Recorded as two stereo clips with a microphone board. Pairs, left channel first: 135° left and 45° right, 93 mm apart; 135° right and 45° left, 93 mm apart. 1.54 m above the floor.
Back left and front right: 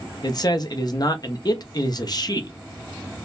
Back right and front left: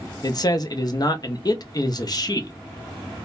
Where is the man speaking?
Straight behind, 0.7 m.